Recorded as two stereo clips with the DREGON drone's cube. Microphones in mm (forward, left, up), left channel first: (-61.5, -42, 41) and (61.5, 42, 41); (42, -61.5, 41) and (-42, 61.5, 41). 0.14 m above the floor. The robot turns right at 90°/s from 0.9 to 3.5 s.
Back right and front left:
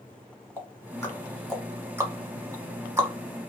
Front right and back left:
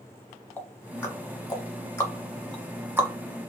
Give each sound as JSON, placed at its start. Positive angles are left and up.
{"t": 0.6, "sound": "ticking", "azimuth_deg": -115, "distance_m": 1.0}